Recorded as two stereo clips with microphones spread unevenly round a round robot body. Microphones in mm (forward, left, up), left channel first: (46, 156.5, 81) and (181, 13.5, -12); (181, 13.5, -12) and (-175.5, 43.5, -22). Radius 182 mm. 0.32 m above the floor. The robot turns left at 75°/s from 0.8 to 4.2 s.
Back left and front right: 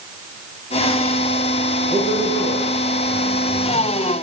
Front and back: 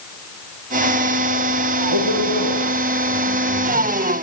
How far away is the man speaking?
About 6.5 m.